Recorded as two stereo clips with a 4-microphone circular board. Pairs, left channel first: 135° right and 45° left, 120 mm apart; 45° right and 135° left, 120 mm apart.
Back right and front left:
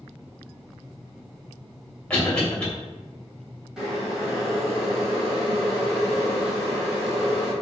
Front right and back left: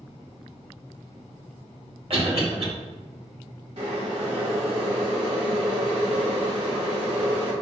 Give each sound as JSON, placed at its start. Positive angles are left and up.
{"t": 2.1, "sound": "a cough", "azimuth_deg": 145, "distance_m": 1.9}
{"t": 3.8, "sound": "boiling", "azimuth_deg": 130, "distance_m": 1.7}